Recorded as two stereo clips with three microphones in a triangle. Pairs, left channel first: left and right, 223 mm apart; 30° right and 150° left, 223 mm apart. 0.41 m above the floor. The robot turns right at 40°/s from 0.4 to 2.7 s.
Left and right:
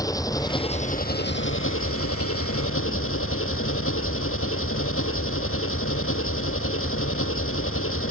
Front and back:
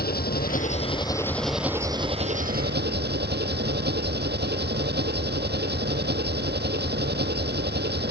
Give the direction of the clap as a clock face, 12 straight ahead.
I don't hear a clap.